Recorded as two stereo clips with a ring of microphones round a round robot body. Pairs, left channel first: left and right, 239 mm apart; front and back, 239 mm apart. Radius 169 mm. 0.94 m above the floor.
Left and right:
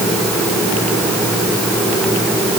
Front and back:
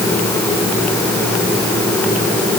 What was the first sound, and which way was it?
Only background noise.